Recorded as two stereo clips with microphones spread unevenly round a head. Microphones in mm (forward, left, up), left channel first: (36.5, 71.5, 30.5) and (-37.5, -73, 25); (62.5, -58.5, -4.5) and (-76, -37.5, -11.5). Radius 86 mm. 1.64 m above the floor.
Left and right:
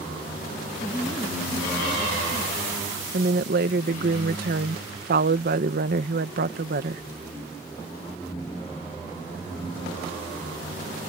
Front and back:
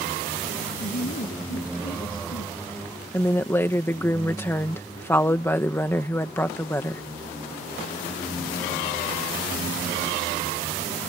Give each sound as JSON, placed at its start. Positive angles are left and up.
{"t": 0.8, "sound": "a woman speaking", "azimuth_deg": -25}
{"t": 3.1, "sound": "a woman speaking", "azimuth_deg": -85}